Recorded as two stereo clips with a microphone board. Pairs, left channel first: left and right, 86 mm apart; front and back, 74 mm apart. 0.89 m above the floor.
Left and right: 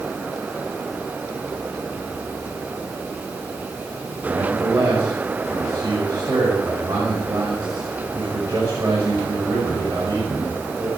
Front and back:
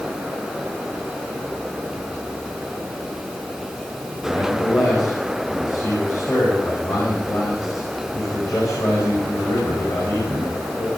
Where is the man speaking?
40° right, 5 m.